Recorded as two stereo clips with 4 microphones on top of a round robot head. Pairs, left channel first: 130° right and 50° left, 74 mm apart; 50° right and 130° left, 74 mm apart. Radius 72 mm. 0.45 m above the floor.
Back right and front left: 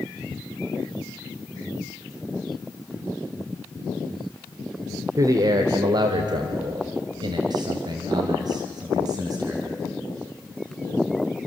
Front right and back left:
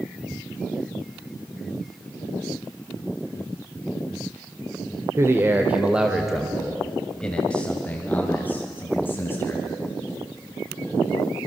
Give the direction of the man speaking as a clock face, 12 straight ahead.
9 o'clock.